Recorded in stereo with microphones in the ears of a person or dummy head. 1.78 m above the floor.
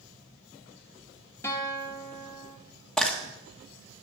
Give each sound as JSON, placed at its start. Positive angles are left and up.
{"t": 1.4, "sound": "a guitar", "side_deg": 15, "distance_m": 2.0}
{"t": 3.0, "sound": "frying", "side_deg": 5, "distance_m": 1.7}